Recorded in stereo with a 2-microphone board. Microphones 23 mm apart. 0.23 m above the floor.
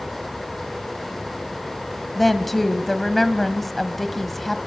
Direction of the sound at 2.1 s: 5° left (ahead or behind).